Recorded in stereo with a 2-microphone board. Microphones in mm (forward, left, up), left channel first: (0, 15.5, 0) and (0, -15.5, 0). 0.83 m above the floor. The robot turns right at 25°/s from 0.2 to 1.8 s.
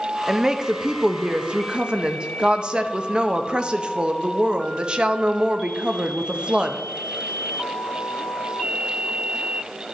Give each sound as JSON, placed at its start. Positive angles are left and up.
{"t": 0.3, "sound": "a woman speaking", "azimuth_deg": -145, "distance_m": 0.6}